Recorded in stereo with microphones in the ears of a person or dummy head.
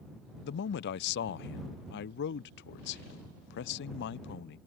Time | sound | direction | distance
0.4 | a man speaking | 65° left (ahead or behind) | ?